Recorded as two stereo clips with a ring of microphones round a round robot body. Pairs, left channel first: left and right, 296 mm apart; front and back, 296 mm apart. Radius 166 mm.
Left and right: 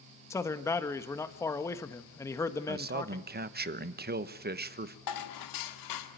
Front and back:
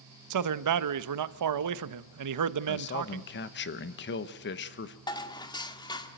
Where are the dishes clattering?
75° left, 1.7 m.